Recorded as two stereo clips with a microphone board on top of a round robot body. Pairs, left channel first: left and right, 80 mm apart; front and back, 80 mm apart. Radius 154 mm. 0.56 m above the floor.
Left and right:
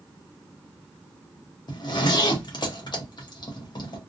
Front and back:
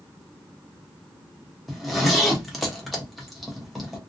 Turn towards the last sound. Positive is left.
turn(degrees=90)